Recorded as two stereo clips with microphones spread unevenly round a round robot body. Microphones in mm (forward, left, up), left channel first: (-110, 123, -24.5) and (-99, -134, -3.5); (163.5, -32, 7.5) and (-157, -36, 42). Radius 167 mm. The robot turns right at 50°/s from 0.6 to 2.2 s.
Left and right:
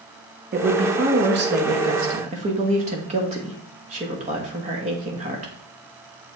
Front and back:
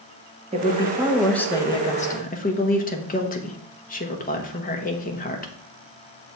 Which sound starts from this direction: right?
A woman speaking, at 0.5 s.